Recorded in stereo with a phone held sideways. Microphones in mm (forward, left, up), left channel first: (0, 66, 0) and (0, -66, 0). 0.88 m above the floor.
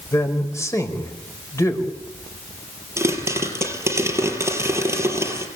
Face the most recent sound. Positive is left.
turn(degrees=-20)  # may be behind; listen again after turning